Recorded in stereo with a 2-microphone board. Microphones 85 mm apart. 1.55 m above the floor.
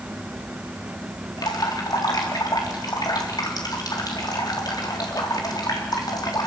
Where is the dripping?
50° left (ahead or behind), 4 m.